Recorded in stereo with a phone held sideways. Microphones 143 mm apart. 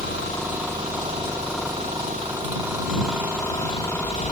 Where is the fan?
80° right.